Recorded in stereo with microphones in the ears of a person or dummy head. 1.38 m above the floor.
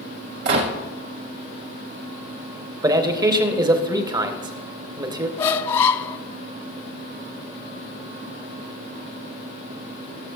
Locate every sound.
0.5 s a gunshot: 65° right (ahead or behind), 1.4 m
2.8 s a man speaking: 30° right (ahead or behind), 0.8 m
5.4 s a squeak: 30° left (ahead or behind), 0.5 m